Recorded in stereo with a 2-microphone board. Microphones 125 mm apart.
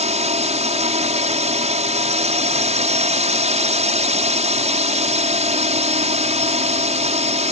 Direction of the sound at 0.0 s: 65° right (ahead or behind).